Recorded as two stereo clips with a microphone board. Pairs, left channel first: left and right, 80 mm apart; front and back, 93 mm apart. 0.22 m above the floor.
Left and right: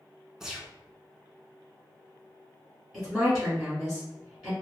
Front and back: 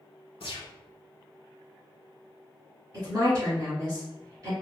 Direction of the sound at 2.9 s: 170° right.